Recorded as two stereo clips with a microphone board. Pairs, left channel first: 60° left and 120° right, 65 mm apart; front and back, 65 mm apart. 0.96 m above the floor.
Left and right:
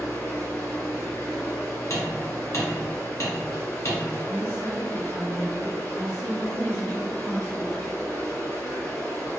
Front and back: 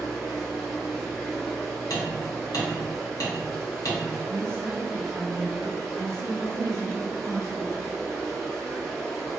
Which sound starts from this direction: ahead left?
Hammering, at 1.9 s.